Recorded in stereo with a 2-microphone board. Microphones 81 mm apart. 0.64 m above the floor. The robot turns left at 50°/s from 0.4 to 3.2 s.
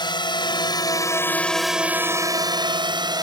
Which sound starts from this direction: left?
A drone, at 0.0 s.